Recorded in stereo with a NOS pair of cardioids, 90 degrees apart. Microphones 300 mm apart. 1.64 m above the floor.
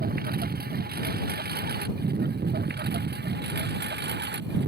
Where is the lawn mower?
30° right; by 4.7 s 35° right.